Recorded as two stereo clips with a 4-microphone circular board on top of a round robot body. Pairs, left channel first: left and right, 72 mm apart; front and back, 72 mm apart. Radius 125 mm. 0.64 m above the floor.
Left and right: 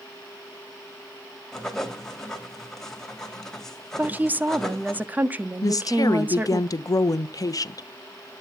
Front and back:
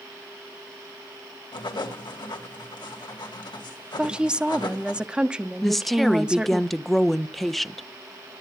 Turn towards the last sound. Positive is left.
turn(degrees=90)